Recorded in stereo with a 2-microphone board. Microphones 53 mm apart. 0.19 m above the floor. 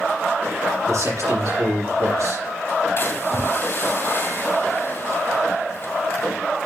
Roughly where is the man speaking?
Right.